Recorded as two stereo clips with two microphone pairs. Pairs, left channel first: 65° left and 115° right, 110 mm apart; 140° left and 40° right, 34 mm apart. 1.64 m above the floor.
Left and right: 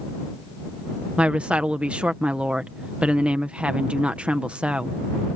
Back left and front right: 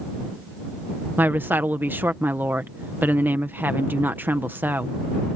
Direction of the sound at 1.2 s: 35° right.